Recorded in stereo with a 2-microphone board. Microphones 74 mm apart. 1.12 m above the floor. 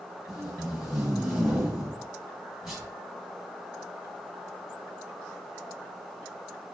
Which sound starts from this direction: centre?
Tape being pulled, at 0.3 s.